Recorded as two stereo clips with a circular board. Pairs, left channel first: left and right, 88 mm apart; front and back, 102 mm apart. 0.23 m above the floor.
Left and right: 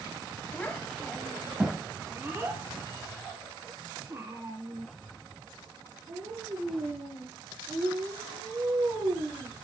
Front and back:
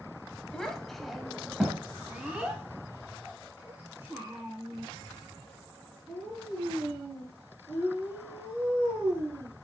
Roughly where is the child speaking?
Left.